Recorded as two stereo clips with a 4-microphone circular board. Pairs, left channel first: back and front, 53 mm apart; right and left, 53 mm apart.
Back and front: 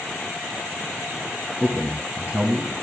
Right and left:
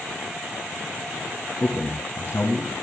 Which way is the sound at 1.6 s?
60° right.